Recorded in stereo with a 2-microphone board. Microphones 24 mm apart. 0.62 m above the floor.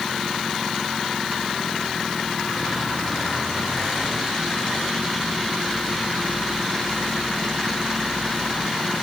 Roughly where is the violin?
I don't hear a violin.